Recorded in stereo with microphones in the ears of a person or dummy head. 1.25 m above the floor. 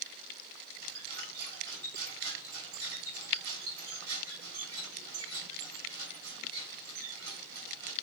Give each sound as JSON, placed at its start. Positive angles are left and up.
{"t": 0.8, "sound": "a squeak", "side_deg": -50, "distance_m": 3.5}